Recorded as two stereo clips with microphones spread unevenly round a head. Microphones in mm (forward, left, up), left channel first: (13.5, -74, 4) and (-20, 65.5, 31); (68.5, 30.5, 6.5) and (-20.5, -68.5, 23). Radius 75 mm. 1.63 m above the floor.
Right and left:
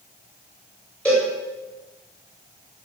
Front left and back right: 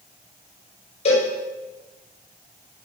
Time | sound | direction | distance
1.1 | a cowbell | 10° left | 8.5 m